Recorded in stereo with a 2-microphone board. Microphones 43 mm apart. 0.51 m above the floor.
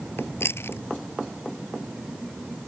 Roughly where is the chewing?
Left.